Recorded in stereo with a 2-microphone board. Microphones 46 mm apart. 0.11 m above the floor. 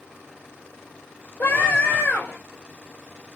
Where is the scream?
45° left (ahead or behind), 2.5 m.